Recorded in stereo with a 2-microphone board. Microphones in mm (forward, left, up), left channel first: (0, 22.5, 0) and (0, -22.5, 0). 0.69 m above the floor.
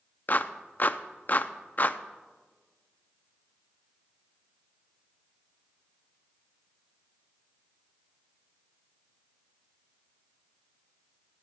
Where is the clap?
45° left (ahead or behind), 0.5 m.